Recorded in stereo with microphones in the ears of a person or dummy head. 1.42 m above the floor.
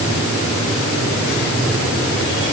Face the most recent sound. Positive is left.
No sound to turn to.